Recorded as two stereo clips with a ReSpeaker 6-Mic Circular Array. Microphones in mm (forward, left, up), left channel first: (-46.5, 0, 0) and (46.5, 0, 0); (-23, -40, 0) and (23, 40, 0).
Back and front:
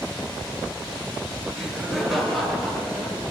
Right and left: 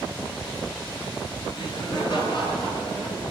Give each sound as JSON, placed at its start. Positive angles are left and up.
{"t": 1.6, "sound": "laughter", "azimuth_deg": -85, "distance_m": 4.5}